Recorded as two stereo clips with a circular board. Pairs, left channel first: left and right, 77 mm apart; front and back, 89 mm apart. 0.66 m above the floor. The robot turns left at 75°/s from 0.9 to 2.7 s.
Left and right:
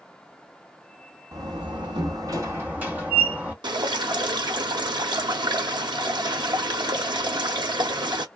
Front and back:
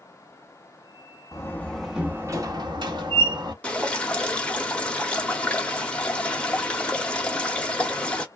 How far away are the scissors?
I don't hear scissors.